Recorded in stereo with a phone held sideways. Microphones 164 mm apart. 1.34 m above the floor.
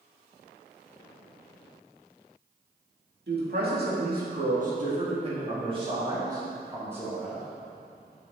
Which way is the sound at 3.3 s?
70° right (ahead or behind).